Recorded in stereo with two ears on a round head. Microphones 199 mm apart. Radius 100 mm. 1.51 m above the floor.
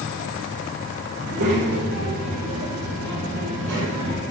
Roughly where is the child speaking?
Right.